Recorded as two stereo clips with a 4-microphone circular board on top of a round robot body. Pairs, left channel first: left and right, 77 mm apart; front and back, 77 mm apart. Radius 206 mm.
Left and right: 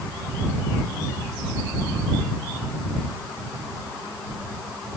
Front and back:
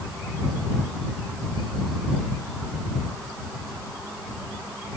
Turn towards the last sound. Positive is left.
No sound to turn to.